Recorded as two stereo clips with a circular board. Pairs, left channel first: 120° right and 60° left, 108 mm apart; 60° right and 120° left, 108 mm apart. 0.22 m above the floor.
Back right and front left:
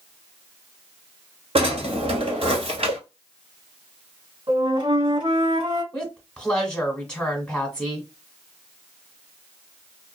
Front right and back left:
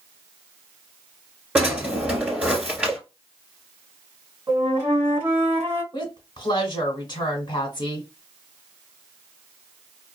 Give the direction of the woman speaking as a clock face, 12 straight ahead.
1 o'clock.